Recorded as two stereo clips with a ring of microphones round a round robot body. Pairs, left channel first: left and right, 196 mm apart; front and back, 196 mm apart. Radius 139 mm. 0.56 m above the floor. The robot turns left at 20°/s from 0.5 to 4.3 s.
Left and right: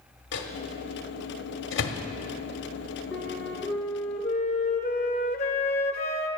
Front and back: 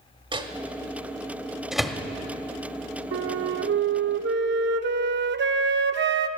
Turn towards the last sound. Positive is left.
turn(degrees=155)